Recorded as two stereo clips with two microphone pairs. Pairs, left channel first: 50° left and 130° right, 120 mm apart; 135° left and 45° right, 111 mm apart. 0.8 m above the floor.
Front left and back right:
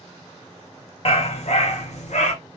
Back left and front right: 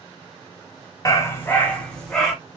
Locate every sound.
1.1 s a dog barking: 75° left, 1.1 m; by 2.3 s 45° left, 1.9 m